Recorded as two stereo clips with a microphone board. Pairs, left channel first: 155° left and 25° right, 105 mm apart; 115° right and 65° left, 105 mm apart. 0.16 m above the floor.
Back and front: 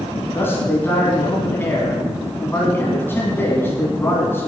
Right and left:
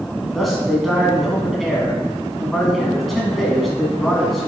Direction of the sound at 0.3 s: 160° left.